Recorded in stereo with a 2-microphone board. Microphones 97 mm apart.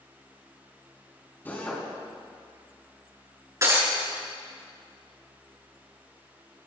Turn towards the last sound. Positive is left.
turn(degrees=-35)  # may be behind; listen again after turning